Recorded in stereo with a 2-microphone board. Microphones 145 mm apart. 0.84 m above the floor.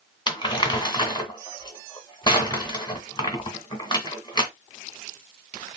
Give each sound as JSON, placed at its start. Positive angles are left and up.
{"t": 0.3, "sound": "crumpling", "side_deg": 30, "distance_m": 1.7}